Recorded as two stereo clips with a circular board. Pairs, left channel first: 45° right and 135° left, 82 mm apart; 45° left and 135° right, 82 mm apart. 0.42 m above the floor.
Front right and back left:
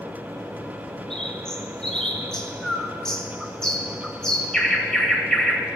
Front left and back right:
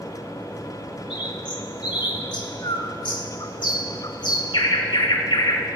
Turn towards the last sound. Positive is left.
turn(degrees=35)